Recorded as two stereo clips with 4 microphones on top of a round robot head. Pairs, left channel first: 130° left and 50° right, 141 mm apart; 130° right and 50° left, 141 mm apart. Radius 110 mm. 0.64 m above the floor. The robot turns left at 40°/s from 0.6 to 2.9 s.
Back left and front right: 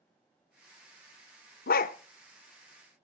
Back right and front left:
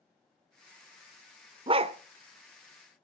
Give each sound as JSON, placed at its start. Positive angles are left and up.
{"t": 1.7, "sound": "a dog barking", "azimuth_deg": 110, "distance_m": 0.7}